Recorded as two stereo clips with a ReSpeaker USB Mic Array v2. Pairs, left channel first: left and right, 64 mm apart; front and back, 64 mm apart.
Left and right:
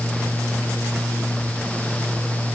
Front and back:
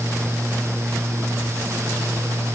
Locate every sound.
Only background noise.